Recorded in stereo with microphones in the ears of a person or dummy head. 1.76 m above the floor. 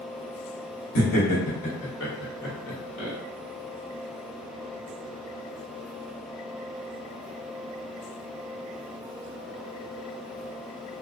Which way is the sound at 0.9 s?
75° left (ahead or behind).